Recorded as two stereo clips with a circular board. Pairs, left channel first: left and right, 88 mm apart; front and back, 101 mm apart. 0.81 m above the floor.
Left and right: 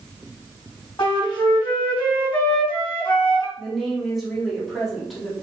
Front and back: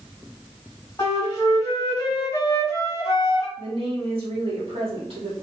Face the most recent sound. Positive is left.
turn(degrees=180)